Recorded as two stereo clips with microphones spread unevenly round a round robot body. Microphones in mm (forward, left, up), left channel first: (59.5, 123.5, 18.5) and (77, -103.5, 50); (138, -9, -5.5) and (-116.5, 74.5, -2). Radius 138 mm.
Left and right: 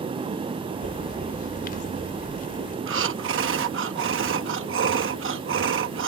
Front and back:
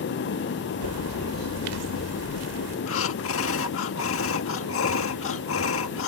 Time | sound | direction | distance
0.8 | a bird | 155° left | ?
2.9 | breathing | 55° right | ?